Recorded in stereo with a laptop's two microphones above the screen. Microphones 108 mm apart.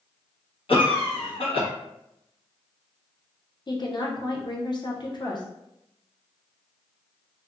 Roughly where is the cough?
Left.